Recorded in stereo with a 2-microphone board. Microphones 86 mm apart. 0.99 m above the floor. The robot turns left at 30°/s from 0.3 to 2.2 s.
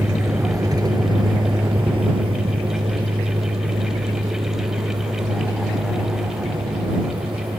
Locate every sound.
0.0 s a vehicle: 30° right (ahead or behind); by 7.6 s 85° right